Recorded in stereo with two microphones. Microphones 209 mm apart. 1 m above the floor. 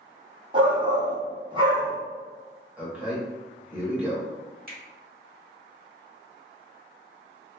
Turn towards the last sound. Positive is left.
turn(degrees=-45)  # may be behind; listen again after turning